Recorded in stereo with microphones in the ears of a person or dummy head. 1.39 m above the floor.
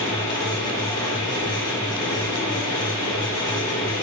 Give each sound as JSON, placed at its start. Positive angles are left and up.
{"t": 0.0, "sound": "a fan", "side_deg": 20, "distance_m": 0.8}